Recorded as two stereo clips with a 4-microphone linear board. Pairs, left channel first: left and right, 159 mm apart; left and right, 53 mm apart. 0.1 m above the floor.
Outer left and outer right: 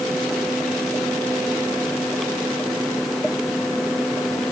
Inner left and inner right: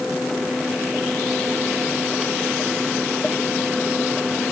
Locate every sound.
Only background noise.